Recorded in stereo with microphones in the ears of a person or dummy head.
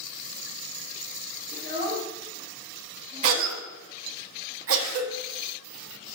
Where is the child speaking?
50° right (ahead or behind), 2 m; by 3.6 s 15° right (ahead or behind), 2.5 m.